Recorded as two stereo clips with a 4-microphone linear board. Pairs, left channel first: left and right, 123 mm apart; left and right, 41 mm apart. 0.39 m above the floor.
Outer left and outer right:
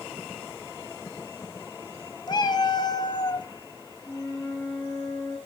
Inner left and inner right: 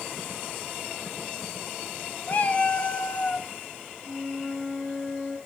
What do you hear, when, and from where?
2.3 s a cat meowing: 35° left (ahead or behind), 0.7 m
4.0 s a flute: 5° left (ahead or behind), 4.5 m